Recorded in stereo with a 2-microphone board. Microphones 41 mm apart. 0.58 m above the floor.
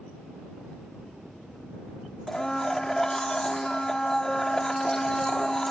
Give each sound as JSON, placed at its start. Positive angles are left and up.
{"t": 2.3, "sound": "a blender", "side_deg": 15}